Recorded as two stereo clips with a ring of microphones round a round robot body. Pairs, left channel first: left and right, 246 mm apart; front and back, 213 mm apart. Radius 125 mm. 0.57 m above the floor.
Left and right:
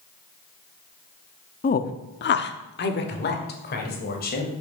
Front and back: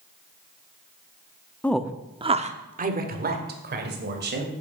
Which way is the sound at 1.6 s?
75° left.